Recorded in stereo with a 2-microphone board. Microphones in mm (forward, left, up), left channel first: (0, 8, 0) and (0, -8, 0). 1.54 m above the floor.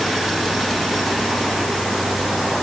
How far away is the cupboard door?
No cupboard door in this recording.